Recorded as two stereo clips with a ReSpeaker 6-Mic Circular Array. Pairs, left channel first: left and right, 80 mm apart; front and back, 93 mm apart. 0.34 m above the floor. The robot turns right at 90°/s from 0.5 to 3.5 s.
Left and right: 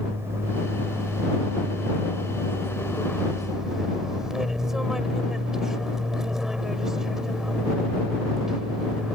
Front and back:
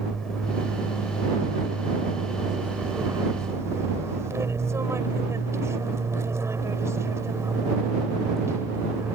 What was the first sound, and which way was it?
An aircraft, 80° right.